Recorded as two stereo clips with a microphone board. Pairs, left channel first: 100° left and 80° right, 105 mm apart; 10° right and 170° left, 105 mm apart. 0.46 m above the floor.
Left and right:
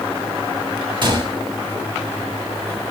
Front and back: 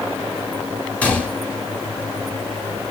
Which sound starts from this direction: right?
A gunshot, at 1.0 s.